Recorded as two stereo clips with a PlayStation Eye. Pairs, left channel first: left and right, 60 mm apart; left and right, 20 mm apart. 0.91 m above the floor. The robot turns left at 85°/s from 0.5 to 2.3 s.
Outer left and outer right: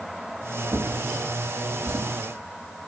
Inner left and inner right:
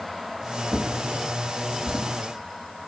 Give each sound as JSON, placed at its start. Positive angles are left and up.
{"t": 0.7, "sound": "a drawer", "side_deg": -30, "distance_m": 5.0}